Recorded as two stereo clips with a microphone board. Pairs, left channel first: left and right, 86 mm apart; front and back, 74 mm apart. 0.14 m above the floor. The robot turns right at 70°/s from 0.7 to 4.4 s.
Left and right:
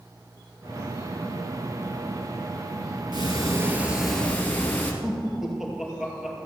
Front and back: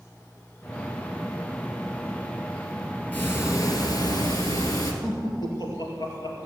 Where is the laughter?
5° right, 2.5 m.